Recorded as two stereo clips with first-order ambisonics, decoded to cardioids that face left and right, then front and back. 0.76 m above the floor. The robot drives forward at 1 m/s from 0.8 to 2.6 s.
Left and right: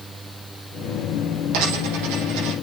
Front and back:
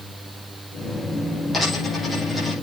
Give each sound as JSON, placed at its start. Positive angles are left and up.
{"t": 1.5, "sound": "a dropped coin", "azimuth_deg": -80, "distance_m": 7.5}